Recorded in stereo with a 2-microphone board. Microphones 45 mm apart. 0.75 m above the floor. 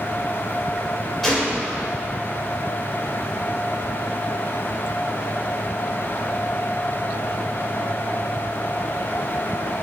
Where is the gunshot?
Centre (ahead or behind), 3 m.